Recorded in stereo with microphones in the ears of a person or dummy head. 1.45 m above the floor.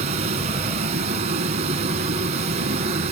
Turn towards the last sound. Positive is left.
turn(degrees=-35)  # may be behind; listen again after turning